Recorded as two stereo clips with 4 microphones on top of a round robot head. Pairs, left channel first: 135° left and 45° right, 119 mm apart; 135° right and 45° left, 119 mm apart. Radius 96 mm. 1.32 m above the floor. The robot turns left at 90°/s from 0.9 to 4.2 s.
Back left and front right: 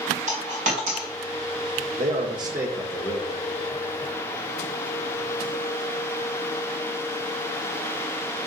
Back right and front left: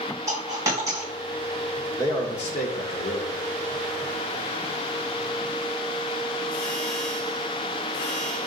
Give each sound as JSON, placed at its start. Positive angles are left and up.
{"t": 0.3, "sound": "a dropped coin", "azimuth_deg": -20, "distance_m": 2.5}
{"t": 2.0, "sound": "a man speaking", "azimuth_deg": -65, "distance_m": 1.4}